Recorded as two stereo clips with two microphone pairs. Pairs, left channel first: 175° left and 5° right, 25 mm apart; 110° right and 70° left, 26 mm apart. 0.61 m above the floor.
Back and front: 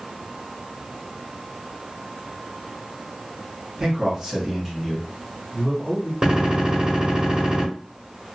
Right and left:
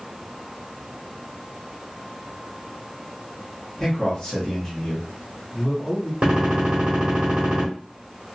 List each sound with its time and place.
3.8 s a man speaking: 60° right, 1.4 m; by 6.1 s 170° right, 1.3 m
6.2 s a gunshot: 40° left, 1.4 m